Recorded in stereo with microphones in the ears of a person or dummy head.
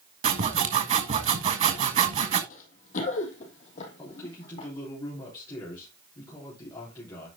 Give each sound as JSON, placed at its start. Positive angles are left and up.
{"t": 0.2, "sound": "sawing", "side_deg": -40, "distance_m": 1.4}
{"t": 2.5, "sound": "running footsteps", "side_deg": 50, "distance_m": 3.0}
{"t": 4.0, "sound": "a man speaking", "side_deg": 25, "distance_m": 3.5}